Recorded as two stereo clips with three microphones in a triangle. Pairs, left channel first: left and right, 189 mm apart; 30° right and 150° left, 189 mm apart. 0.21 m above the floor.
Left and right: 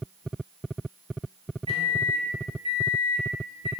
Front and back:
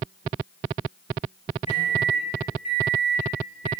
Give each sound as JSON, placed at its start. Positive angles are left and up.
{"t": 1.7, "sound": "a microwave", "azimuth_deg": -50, "distance_m": 1.0}